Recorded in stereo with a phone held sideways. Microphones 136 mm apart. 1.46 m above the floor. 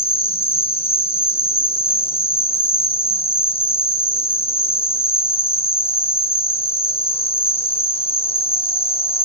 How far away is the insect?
About 0.7 m.